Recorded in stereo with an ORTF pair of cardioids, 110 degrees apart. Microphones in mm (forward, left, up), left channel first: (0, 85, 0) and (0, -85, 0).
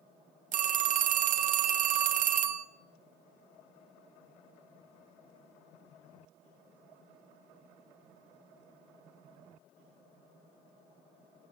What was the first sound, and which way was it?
A phone ringing, 55° right.